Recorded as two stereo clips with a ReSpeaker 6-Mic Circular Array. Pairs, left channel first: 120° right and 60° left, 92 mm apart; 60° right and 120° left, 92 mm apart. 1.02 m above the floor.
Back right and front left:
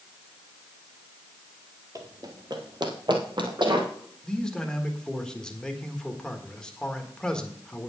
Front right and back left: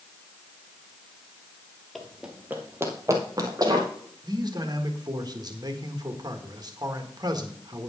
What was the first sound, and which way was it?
Running footsteps, 30° left.